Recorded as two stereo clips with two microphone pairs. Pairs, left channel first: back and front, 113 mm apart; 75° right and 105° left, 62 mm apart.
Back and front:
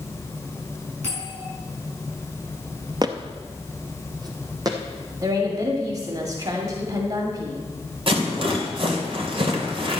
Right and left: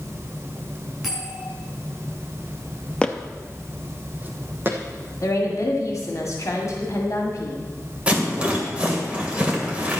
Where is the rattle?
35° left, 2.5 m.